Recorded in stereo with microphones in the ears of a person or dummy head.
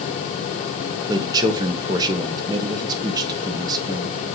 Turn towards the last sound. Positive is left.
turn(degrees=-25)  # may be behind; listen again after turning